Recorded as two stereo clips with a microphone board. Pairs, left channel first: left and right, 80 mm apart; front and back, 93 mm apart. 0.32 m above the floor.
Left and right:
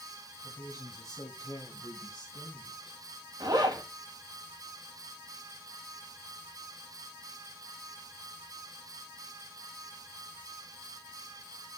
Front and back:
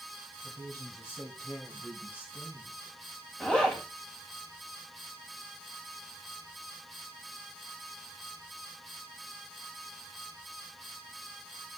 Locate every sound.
0.4 s a woman speaking: 60° left, 1.7 m; by 3.0 s 70° left, 3 m
3.4 s a zipper: 80° right, 2 m